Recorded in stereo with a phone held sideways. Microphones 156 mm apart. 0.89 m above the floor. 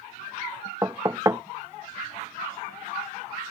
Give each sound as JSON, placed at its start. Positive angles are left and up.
{"t": 0.8, "sound": "knocking", "side_deg": -20}